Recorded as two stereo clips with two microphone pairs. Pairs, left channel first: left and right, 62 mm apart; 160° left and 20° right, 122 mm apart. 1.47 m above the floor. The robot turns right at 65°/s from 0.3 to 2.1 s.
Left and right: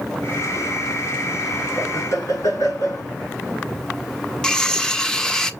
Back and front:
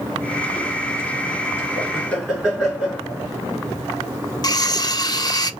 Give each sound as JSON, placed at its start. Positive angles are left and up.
{"t": 1.8, "sound": "laughter", "azimuth_deg": 45, "distance_m": 4.0}
{"t": 4.4, "sound": "cutlery clinking", "azimuth_deg": 165, "distance_m": 0.6}